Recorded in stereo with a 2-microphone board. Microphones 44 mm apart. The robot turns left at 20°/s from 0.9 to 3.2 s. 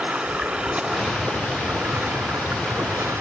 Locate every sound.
0.0 s running water: 25° right, 1.7 m; by 3.2 s 75° right, 1.7 m